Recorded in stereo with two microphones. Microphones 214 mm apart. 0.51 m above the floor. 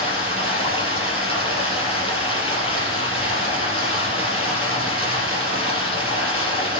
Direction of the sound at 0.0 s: 25° left (ahead or behind).